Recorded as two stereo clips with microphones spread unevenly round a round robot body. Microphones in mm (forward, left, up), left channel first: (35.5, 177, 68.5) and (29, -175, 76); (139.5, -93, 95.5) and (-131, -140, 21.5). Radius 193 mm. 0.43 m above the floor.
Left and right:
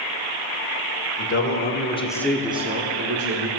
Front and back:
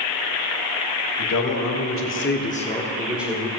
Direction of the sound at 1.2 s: 40° left.